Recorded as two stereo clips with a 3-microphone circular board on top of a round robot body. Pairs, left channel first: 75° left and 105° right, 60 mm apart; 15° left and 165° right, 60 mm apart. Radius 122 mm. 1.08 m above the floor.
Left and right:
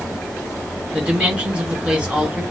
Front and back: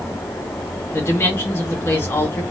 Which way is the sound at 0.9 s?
30° right.